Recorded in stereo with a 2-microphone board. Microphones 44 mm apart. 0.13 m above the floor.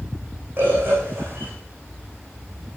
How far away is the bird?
About 6 m.